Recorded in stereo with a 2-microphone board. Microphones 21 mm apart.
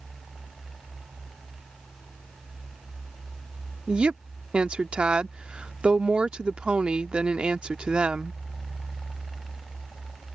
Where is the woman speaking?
65° right (ahead or behind).